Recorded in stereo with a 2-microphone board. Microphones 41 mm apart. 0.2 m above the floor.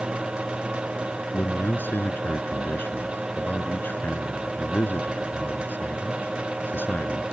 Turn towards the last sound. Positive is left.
turn(degrees=60)  # may be behind; listen again after turning